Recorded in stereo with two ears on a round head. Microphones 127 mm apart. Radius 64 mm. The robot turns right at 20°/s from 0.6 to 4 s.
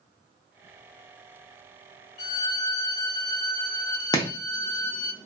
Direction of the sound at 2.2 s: 100° left.